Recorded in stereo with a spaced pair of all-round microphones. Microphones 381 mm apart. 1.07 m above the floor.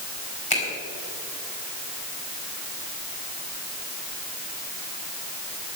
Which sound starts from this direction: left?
A finger snap, at 0.5 s.